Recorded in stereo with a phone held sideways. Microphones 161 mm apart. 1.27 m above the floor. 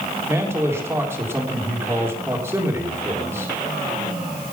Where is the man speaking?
15° right (ahead or behind), 3.5 m.